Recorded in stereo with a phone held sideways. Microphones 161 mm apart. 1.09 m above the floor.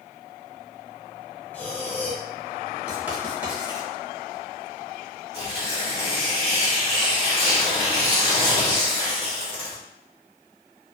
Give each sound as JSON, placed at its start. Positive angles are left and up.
{"t": 1.5, "sound": "breathing", "side_deg": 10, "distance_m": 0.6}
{"t": 2.9, "sound": "writing", "side_deg": -10, "distance_m": 1.0}
{"t": 5.3, "sound": "tearing paper", "side_deg": -40, "distance_m": 1.4}